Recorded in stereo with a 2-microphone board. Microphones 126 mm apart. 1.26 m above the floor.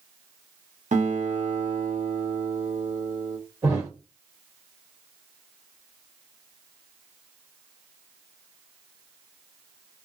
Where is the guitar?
65° right (ahead or behind), 0.8 m.